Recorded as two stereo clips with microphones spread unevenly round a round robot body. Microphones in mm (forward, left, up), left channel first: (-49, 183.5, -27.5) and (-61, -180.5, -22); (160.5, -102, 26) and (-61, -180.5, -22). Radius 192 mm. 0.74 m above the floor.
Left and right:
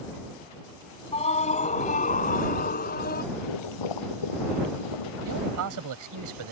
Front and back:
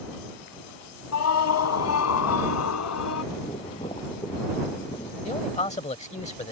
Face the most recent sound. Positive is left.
turn(degrees=-45)